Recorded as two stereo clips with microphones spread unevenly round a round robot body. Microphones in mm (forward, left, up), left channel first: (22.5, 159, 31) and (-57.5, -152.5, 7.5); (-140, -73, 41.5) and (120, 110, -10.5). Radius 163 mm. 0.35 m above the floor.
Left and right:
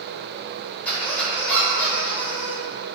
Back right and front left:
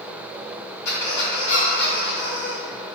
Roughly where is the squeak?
Behind.